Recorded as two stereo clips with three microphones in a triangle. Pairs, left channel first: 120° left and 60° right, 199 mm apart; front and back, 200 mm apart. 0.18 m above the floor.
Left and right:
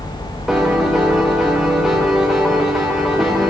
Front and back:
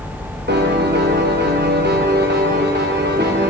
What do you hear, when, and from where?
0.5 s a piano: 150° right, 5 m